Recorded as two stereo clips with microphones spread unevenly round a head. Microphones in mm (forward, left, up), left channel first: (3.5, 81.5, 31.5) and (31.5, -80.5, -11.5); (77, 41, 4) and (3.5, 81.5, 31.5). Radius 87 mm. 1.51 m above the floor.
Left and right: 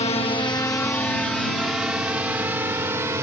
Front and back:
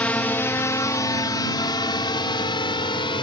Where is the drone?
45° left; by 3.2 s 5° right.